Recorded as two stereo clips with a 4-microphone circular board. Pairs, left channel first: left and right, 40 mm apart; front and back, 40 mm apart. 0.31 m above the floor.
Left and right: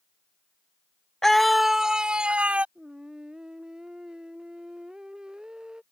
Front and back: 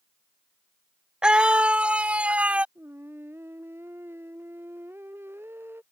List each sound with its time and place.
1.2 s a scream: 155° left; by 2.6 s 135° right
2.8 s singing: 160° right